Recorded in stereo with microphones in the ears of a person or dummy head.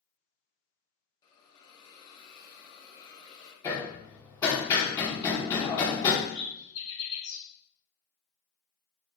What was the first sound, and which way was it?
A hiss, 30° left (ahead or behind).